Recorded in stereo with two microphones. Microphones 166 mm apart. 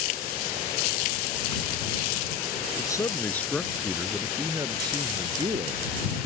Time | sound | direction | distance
2.8 | a man speaking | 25° left (ahead or behind) | ?